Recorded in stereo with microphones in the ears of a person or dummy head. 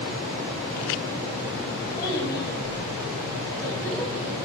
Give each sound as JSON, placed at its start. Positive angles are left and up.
{"t": 2.0, "sound": "a child speaking", "side_deg": 25, "distance_m": 7.5}